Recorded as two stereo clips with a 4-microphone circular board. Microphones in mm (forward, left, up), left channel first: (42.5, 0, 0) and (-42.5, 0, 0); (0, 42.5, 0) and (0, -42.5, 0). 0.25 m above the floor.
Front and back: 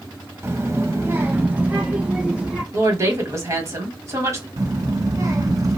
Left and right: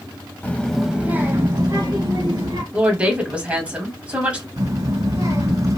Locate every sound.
0.4 s a child speaking: 145° left, 0.7 m; by 2.6 s 105° right, 1.4 m
2.7 s a woman speaking: 155° right, 1.2 m
4.6 s a child speaking: 130° right, 1.8 m